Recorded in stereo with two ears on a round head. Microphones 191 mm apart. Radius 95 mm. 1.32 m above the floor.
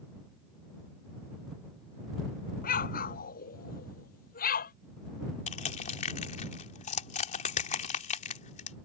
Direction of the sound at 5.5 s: 35° left (ahead or behind).